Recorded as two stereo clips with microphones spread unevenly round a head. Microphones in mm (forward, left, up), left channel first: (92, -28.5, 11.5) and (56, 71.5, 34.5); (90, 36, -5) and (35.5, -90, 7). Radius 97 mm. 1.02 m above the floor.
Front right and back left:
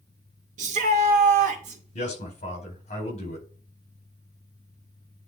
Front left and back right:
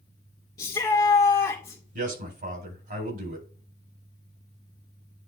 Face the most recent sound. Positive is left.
turn(degrees=-100)